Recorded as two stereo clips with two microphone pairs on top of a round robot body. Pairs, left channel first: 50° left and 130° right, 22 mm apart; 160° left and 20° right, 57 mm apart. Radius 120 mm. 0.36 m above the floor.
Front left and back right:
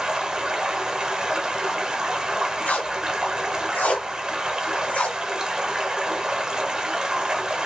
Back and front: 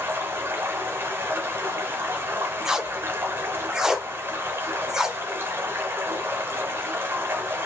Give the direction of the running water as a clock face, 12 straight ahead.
2 o'clock.